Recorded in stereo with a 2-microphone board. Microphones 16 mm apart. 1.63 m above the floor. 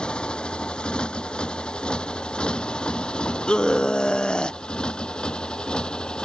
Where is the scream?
55° left (ahead or behind).